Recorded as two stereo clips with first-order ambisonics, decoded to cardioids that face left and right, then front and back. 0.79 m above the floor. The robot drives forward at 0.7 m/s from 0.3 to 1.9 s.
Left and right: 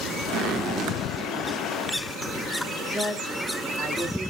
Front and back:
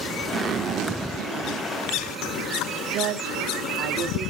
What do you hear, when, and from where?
0.3 s a zipper: 120° right, 0.5 m; by 2.5 s 165° right, 1.4 m
2.9 s a woman speaking: 175° left, 1.6 m